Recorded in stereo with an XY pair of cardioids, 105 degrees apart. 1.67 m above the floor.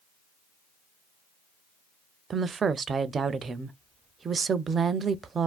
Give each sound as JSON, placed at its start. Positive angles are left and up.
{"t": 2.3, "sound": "a woman speaking", "azimuth_deg": -40, "distance_m": 0.5}